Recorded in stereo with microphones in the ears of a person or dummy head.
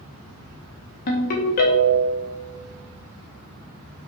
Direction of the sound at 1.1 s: 35° left (ahead or behind).